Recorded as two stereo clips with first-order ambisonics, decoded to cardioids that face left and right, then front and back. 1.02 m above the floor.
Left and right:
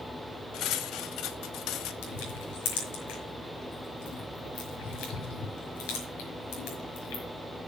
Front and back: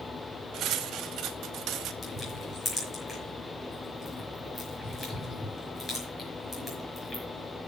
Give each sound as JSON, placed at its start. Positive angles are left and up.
{"t": 0.5, "sound": "cutlery clinking", "azimuth_deg": 130, "distance_m": 0.9}
{"t": 2.0, "sound": "crushing", "azimuth_deg": 75, "distance_m": 5.0}